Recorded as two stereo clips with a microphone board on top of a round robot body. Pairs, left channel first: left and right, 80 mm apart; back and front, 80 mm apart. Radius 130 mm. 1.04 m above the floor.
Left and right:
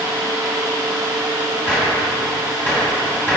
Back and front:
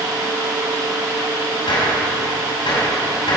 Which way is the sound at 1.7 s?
160° left.